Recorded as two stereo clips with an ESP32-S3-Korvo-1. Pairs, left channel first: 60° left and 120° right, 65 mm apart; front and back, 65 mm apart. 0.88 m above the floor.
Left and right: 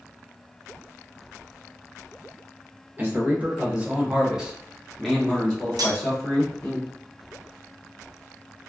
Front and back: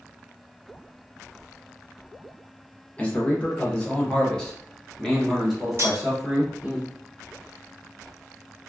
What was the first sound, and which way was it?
A man speaking, 65° right.